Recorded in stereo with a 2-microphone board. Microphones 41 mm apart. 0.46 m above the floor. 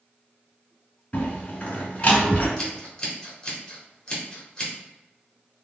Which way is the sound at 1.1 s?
30° left (ahead or behind).